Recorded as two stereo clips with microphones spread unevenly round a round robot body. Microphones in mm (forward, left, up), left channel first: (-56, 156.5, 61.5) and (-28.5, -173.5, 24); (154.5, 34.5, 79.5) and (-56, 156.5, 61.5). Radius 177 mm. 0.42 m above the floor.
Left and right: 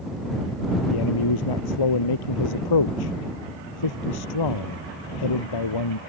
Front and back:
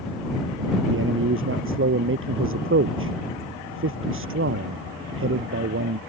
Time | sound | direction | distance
0.9 | a man speaking | 115° left | ?